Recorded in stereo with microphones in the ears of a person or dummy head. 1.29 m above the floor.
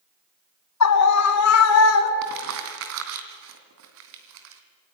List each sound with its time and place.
0.8 s a scream: 85° left, 2.5 m; by 2.1 s 70° left (ahead or behind), 3 m
2.2 s crumpling: 65° right (ahead or behind), 2.5 m